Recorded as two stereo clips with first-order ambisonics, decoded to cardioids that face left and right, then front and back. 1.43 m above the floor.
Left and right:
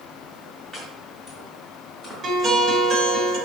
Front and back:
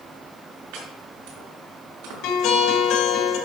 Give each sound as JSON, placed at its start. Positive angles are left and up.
{"t": 0.7, "sound": "chopping", "azimuth_deg": 170, "distance_m": 5.0}
{"t": 2.2, "sound": "a guitar", "azimuth_deg": -25, "distance_m": 2.5}